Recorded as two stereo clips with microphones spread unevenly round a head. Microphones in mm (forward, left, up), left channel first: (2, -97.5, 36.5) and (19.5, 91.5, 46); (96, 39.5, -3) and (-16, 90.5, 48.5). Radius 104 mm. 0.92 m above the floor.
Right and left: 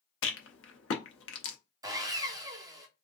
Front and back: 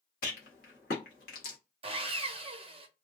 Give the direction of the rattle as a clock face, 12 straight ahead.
2 o'clock.